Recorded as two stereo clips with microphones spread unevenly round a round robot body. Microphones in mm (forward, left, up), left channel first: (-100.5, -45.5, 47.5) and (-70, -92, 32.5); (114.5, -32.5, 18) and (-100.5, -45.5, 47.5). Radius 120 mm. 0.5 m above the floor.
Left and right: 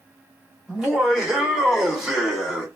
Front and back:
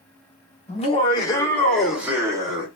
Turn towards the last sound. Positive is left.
turn(degrees=-115)